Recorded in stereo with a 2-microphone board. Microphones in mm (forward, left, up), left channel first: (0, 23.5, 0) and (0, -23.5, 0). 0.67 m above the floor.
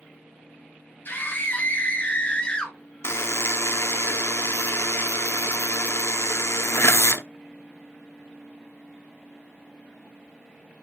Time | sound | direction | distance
1.1 | a scream | 45° left (ahead or behind) | 3.5 m
3.0 | a buzzer | 65° left (ahead or behind) | 0.8 m